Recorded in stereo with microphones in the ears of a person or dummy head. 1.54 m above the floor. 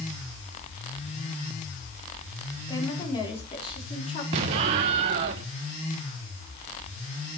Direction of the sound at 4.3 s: 25° right (ahead or behind).